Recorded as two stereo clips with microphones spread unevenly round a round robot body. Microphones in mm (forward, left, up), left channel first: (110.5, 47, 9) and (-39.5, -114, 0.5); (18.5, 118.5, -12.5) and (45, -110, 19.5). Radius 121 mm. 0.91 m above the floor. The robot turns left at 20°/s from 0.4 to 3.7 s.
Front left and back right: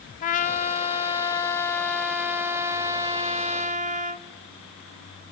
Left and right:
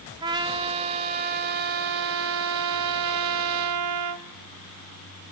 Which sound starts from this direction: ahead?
A trumpet, at 0.2 s.